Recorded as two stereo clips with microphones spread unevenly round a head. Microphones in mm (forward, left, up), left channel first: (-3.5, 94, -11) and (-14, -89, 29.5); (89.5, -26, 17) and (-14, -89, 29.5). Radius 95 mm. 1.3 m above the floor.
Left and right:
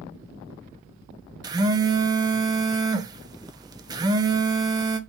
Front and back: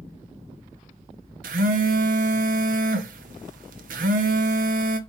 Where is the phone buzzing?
165° right, 0.6 m.